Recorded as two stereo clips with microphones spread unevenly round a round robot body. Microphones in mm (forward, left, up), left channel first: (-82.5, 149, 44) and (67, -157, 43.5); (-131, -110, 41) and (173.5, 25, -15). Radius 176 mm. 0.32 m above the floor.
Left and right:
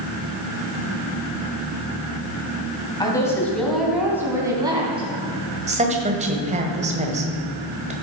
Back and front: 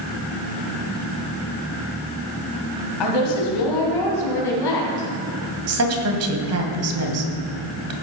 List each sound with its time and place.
3.0 s a woman speaking: 165° right, 3 m; by 5.1 s 140° right, 4 m
5.7 s a woman speaking: 5° left, 1.7 m